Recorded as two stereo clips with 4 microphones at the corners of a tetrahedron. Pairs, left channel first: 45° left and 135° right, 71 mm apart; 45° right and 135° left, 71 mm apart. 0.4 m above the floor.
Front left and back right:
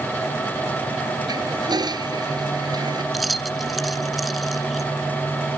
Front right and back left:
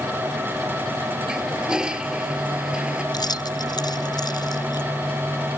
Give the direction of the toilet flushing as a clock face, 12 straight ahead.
5 o'clock.